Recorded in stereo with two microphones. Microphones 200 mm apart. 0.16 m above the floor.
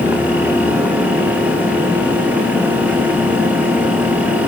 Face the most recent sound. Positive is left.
No sound to turn to.